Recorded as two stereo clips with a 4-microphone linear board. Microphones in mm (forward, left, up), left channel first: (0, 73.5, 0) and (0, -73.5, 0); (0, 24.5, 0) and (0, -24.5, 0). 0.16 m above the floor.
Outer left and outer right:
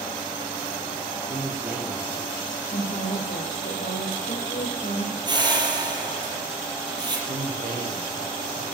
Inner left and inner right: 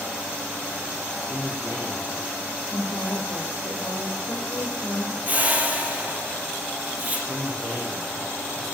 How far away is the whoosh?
About 4.5 m.